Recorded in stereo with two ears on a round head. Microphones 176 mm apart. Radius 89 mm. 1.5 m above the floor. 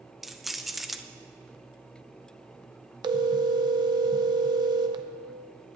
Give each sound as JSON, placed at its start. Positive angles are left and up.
{"t": 0.2, "sound": "keys jangling", "side_deg": 0, "distance_m": 0.6}
{"t": 3.0, "sound": "a phone ringing", "side_deg": -20, "distance_m": 0.6}